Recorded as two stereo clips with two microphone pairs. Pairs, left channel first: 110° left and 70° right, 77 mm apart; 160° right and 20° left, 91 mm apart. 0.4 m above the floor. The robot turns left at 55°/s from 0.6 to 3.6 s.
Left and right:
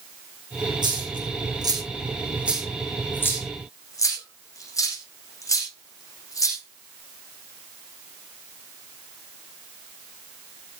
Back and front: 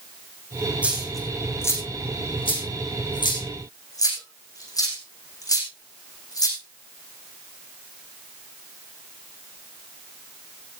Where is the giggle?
No giggle in this recording.